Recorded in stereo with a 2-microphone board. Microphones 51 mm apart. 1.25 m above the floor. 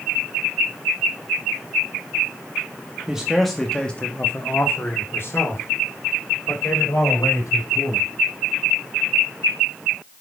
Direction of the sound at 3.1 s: 15° right (ahead or behind).